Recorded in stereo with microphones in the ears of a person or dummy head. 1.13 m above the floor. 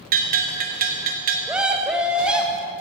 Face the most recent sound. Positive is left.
turn(degrees=-5)  # may be behind; listen again after turning